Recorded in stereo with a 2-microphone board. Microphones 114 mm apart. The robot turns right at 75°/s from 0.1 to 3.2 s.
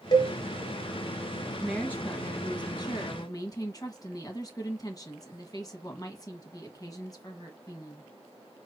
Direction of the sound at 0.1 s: 35° left (ahead or behind).